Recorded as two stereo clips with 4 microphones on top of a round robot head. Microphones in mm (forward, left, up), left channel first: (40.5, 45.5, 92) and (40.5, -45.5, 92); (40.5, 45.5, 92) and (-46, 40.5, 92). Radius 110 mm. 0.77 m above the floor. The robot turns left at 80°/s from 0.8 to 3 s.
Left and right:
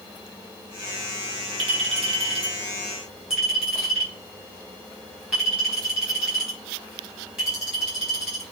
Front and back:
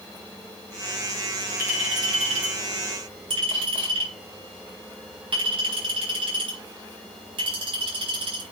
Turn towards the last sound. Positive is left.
turn(degrees=-175)